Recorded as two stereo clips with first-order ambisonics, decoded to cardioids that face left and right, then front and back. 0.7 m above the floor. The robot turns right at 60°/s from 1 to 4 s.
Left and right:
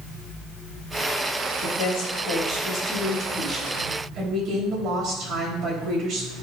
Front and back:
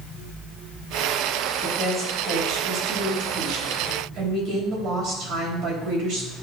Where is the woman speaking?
70° left, 3.5 m; by 6.3 s 145° right, 3.5 m.